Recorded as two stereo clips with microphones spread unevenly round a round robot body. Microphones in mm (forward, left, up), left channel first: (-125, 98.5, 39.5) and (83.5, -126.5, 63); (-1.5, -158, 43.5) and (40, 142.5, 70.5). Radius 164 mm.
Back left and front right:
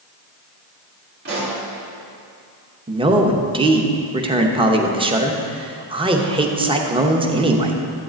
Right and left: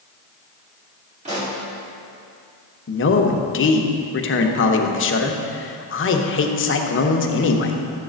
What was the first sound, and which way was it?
A pop, 15° left.